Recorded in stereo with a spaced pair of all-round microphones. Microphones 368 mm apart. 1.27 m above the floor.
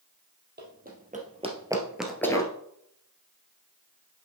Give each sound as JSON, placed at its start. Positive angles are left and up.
{"t": 0.6, "sound": "running footsteps", "side_deg": -30, "distance_m": 2.0}